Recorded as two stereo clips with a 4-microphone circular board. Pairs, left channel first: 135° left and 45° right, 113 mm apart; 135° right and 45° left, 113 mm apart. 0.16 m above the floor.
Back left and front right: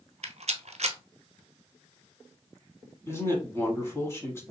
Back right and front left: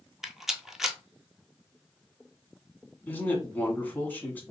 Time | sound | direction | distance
0.2 | a rattle | 40° right | 0.6 m
3.1 | a man speaking | 170° left | 1.2 m